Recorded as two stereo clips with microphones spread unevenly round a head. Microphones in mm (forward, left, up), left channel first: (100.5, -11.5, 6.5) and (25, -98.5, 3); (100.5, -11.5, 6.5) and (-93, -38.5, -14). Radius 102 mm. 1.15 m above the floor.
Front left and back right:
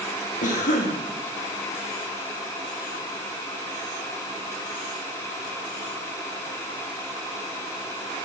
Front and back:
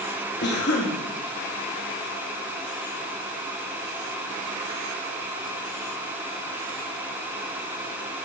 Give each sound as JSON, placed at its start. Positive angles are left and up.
{"t": 0.4, "sound": "a cough", "azimuth_deg": 50, "distance_m": 1.7}